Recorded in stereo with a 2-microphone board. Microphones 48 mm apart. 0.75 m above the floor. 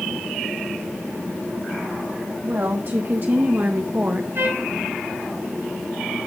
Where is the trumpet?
60° right (ahead or behind), 4 m.